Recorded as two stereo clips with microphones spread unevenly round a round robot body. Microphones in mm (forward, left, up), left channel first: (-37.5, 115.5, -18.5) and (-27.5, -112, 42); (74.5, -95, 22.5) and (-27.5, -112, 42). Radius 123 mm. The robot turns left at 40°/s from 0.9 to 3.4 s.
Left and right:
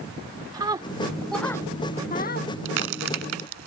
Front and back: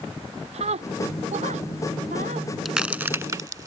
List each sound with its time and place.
0.5 s a scream: 160° right; by 2.5 s 135° left
2.6 s a crack: 85° right; by 3.7 s 115° right